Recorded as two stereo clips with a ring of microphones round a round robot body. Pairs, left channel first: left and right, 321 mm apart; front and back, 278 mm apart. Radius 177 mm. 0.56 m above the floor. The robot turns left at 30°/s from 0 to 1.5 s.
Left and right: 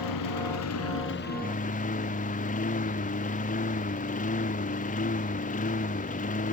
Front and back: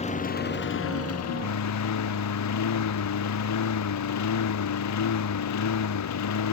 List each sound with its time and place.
0.0 s a lawn mower: 65° left; by 6.5 s 20° left